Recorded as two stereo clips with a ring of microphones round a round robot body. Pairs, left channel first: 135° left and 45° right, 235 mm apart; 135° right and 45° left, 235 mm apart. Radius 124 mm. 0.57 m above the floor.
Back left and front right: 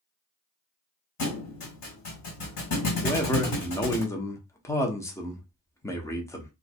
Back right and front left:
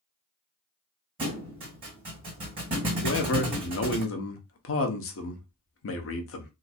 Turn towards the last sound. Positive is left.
turn(degrees=-150)